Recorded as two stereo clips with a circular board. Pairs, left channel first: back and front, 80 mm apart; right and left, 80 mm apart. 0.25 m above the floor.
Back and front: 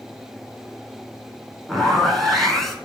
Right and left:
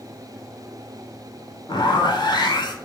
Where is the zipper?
95° right, 0.8 m.